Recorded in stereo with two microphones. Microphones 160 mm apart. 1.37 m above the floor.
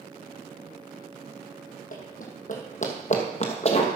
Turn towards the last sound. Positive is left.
turn(degrees=40)  # may be behind; listen again after turning